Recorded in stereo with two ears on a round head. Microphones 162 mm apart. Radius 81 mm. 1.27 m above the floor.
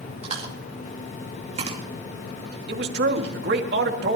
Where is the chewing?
35° right (ahead or behind), 2.5 m.